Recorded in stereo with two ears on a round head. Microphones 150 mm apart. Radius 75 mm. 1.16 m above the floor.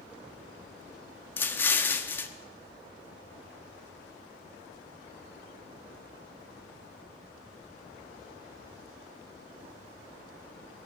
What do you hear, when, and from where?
1.4 s an explosion: 15° left (ahead or behind), 0.8 m